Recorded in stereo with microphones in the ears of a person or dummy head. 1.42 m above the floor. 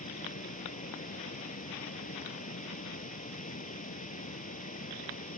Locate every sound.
0.0 s running water: 45° left (ahead or behind)